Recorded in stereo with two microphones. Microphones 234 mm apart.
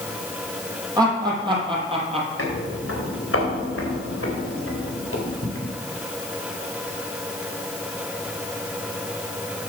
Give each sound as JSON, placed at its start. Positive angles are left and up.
{"t": 1.0, "sound": "laughter", "side_deg": -15, "distance_m": 4.5}
{"t": 2.4, "sound": "footsteps", "side_deg": 65, "distance_m": 5.0}